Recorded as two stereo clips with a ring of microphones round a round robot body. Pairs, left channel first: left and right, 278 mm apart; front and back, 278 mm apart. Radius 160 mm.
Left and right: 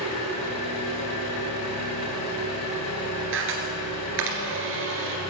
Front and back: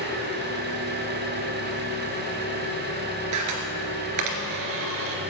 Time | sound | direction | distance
0.0 | an engine running | 125° left | 3 m
3.3 | a camera shutter | 145° right | 2.5 m